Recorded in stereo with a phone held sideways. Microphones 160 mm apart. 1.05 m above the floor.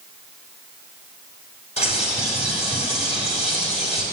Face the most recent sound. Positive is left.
turn(degrees=40)  # may be behind; listen again after turning